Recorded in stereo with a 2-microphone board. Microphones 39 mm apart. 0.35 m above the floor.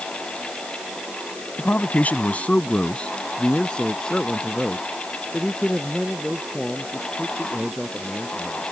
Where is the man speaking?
50° left (ahead or behind); by 8.6 s 10° left (ahead or behind).